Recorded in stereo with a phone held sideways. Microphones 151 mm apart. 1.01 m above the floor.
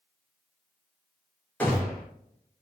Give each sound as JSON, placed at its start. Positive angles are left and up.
{"t": 1.6, "sound": "a gunshot", "side_deg": 10, "distance_m": 1.1}